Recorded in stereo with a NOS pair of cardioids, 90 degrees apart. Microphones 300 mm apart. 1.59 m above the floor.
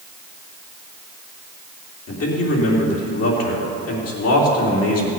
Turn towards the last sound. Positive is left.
turn(degrees=50)